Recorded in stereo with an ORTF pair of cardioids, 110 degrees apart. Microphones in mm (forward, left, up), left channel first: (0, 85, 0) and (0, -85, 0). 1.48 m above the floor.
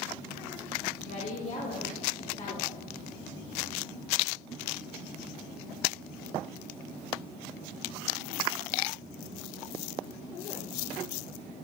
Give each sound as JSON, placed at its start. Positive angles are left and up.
{"t": 1.1, "sound": "a woman speaking", "azimuth_deg": 45, "distance_m": 3.0}